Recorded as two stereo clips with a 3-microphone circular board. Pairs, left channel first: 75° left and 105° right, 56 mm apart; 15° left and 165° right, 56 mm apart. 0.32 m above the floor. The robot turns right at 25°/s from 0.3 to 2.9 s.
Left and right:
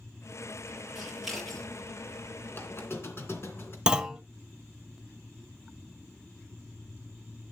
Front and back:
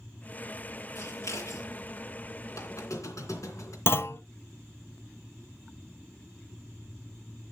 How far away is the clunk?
About 0.6 m.